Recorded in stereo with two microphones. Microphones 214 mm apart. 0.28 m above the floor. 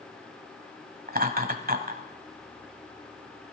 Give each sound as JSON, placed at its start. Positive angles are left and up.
{"t": 1.1, "sound": "laughter", "side_deg": -40, "distance_m": 1.3}